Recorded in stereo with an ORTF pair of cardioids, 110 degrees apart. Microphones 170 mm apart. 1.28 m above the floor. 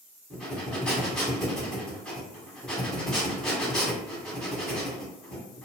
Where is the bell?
I don't hear a bell.